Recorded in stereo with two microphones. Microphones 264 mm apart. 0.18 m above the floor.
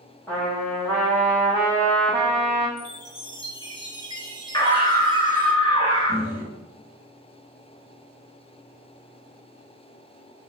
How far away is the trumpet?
About 1.8 m.